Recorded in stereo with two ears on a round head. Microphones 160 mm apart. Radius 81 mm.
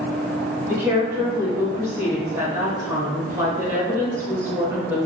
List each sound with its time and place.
0.7 s a woman speaking: 15° right (ahead or behind), 1.2 m